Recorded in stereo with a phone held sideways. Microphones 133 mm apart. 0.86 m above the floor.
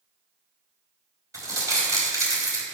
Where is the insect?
No insect in this recording.